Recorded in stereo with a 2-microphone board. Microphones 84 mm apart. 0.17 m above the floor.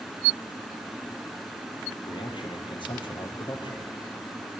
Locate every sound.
2.1 s a man speaking: 70° left (ahead or behind), 4 m